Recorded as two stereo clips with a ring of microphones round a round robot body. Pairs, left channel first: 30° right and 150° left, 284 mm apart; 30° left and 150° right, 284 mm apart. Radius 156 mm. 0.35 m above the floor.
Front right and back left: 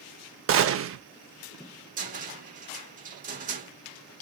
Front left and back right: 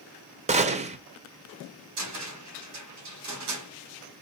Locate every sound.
0.5 s a gunshot: 150° left, 0.8 m
2.0 s a cupboard door: 150° right, 2.5 m